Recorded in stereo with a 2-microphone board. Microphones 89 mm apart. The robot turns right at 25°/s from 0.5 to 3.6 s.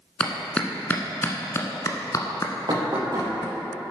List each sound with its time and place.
0.2 s a clap: 10° left (ahead or behind), 1.2 m; by 3.5 s 50° left (ahead or behind), 1.2 m
2.7 s knocking: 55° right (ahead or behind), 3.5 m; by 3.3 s 40° right (ahead or behind), 3.5 m